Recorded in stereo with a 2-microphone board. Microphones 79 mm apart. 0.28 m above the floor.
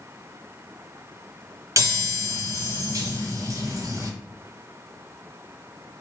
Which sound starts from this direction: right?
A chime, at 1.8 s.